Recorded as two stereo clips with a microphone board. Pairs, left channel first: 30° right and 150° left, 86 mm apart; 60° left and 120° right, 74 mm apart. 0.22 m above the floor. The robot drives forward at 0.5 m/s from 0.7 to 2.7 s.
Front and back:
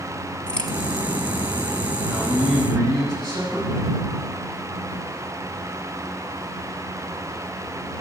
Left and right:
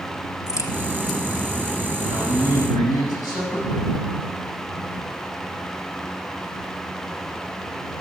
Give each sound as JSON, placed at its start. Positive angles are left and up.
{"t": 0.5, "sound": "a crack", "azimuth_deg": 45, "distance_m": 1.4}
{"t": 2.1, "sound": "a man speaking", "azimuth_deg": 100, "distance_m": 7.5}